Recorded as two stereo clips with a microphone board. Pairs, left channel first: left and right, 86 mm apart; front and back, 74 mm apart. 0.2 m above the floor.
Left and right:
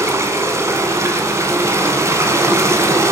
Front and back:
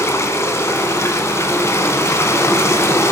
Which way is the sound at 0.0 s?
45° right.